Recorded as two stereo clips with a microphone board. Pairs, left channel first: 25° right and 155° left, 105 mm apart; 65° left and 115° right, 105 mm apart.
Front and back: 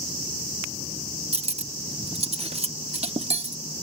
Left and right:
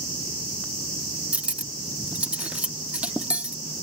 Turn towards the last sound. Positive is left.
turn(degrees=170)